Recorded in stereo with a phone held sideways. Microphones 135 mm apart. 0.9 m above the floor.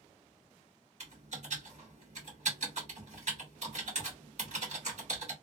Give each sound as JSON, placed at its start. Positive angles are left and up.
{"t": 1.0, "sound": "typing on a keyboard", "side_deg": -60, "distance_m": 1.6}